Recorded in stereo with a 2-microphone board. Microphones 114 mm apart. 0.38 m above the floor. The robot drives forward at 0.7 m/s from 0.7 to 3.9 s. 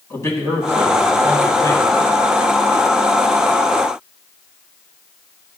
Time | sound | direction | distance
0.1 | a man speaking | 25° left (ahead or behind) | 3 m